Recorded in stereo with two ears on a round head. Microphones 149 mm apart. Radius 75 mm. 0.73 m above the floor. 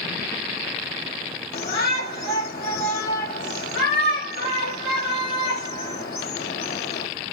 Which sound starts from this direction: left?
A shout, at 1.5 s.